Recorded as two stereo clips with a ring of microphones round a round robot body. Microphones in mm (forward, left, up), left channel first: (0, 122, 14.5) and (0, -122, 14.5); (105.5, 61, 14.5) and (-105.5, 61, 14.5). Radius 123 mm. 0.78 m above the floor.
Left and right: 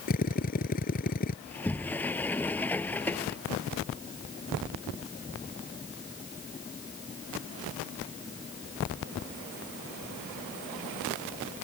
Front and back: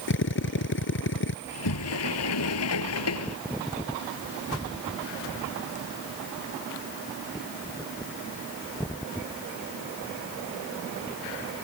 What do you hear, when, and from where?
0.1 s a drill: 30° left
1.4 s a sliding door: 5° left